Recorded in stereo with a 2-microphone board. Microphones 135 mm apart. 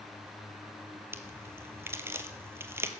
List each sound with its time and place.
1.1 s a crack: 20° right (ahead or behind), 1.0 m